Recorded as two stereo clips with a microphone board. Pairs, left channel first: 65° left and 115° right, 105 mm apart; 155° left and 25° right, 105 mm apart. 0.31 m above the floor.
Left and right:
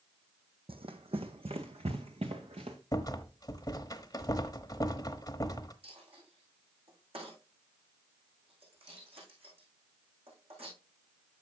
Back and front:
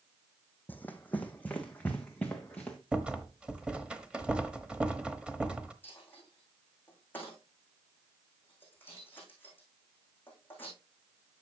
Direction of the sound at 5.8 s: 130° right.